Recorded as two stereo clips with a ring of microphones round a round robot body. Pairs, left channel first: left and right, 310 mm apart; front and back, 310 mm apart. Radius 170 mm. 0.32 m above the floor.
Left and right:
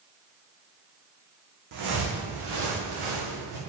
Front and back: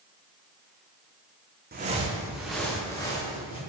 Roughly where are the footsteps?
Behind right.